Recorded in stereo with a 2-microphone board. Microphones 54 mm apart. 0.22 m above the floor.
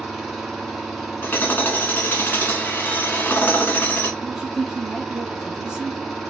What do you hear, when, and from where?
0.0 s an engine running: centre (ahead or behind), 1.5 m
1.2 s hammering: 35° left (ahead or behind), 0.9 m
4.2 s a woman speaking: 10° right (ahead or behind), 1.0 m